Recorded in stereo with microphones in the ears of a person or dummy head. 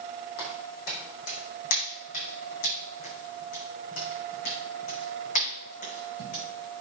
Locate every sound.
0.4 s footsteps: 55° left (ahead or behind), 4.5 m; by 6.4 s 45° left (ahead or behind), 7.5 m